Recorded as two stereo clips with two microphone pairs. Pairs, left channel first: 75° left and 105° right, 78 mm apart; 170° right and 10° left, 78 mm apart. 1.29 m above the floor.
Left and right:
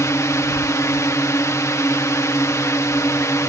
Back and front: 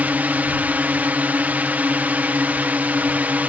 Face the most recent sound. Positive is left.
turn(degrees=70)